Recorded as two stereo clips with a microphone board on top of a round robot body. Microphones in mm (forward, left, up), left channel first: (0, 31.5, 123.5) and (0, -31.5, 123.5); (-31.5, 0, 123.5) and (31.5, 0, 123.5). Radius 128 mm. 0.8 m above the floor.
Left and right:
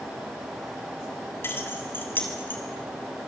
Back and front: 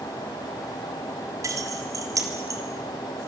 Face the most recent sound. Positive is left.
turn(degrees=30)